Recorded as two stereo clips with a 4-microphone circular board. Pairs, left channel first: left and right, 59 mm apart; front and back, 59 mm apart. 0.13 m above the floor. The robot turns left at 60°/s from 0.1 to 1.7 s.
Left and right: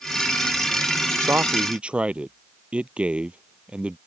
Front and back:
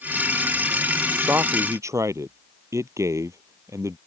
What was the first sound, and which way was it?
A man speaking, 130° right.